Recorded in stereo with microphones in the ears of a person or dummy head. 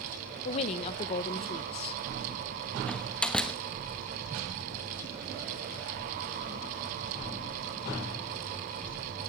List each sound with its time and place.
0.5 s a woman speaking: 35° left (ahead or behind), 1.0 m
2.9 s a door slam: 5° left (ahead or behind), 1.2 m